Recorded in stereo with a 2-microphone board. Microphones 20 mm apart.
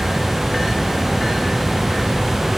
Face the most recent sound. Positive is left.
No sound to turn to.